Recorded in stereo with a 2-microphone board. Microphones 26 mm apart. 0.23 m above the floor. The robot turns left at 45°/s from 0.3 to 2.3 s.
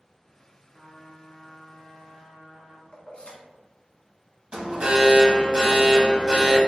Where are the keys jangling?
60° left (ahead or behind), 1.2 m.